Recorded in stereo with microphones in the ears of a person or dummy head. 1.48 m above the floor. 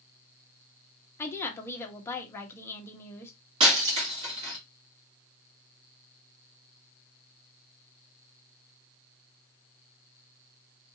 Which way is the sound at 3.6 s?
25° right (ahead or behind).